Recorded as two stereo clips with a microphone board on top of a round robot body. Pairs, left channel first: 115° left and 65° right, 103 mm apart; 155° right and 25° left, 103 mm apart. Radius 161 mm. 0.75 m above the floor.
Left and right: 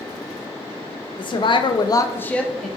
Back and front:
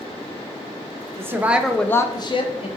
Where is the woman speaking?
85° left, 0.8 m; by 2.7 s 155° right, 0.7 m.